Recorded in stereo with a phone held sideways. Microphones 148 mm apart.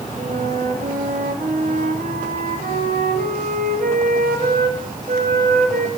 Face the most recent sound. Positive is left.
turn(degrees=-70)  # may be behind; listen again after turning